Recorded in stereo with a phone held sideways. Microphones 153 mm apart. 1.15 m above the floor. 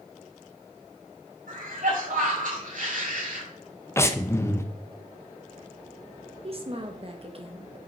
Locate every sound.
1.5 s a cough: 75° right (ahead or behind), 5 m
4.0 s breathing: 20° left (ahead or behind), 0.8 m
6.4 s a woman speaking: 45° right (ahead or behind), 1.6 m